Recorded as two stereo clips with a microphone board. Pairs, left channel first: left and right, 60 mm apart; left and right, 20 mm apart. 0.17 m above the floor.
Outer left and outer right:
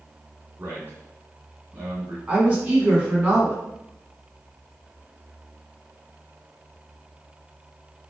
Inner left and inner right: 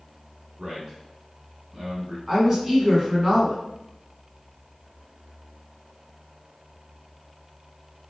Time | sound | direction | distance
0.6 | a man speaking | 40° right (ahead or behind) | 1.9 m
2.3 | a woman speaking | 25° right (ahead or behind) | 1.4 m